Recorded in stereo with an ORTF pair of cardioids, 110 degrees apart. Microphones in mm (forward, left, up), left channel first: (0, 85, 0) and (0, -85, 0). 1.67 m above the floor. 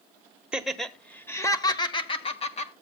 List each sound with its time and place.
0.5 s laughter: 5° right, 1.3 m; by 2.7 s 40° left, 1.7 m